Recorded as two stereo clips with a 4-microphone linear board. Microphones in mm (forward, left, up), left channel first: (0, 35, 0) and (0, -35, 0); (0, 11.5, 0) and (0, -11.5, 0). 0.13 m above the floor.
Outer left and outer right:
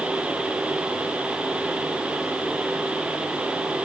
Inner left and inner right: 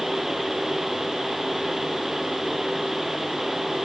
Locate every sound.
Only background noise.